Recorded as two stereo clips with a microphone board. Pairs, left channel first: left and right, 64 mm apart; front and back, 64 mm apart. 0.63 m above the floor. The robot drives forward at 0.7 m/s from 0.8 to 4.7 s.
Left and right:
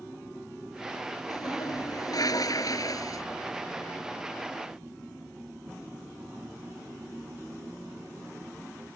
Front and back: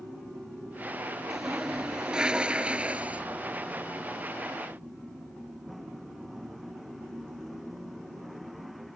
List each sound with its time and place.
1.3 s a toilet flushing: 95° left; by 3.2 s 115° left